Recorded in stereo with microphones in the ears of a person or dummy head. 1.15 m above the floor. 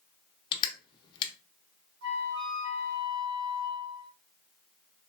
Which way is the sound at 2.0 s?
65° right (ahead or behind).